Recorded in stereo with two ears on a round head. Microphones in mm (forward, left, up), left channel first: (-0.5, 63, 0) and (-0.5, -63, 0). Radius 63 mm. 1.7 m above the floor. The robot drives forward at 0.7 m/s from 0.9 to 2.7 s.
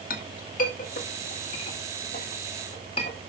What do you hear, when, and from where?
0.1 s a clink: 60° left (ahead or behind), 1.8 m; by 3.2 s 40° left (ahead or behind), 2.5 m